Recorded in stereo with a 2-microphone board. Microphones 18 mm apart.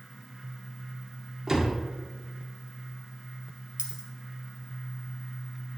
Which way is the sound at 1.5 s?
25° right (ahead or behind).